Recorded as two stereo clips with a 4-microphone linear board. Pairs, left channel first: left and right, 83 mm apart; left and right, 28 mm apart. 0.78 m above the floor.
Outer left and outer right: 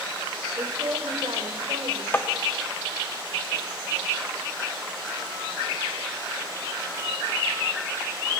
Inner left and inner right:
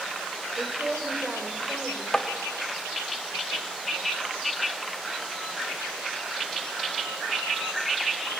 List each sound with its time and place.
0.6 s a woman speaking: 45° right (ahead or behind), 3 m; by 2.0 s 75° right (ahead or behind), 3 m
2.1 s tapping: 25° left (ahead or behind), 1.1 m